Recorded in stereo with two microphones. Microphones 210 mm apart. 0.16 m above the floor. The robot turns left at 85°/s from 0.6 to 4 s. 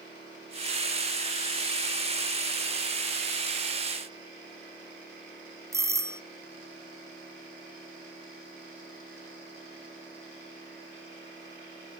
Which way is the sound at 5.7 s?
15° right (ahead or behind).